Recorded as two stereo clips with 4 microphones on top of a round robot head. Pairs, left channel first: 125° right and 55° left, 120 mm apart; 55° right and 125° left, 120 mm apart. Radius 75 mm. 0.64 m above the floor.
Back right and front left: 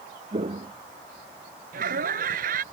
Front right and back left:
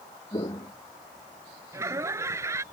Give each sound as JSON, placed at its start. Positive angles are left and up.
{"t": 0.3, "sound": "footsteps", "azimuth_deg": 5}
{"t": 1.7, "sound": "laughter", "azimuth_deg": 55}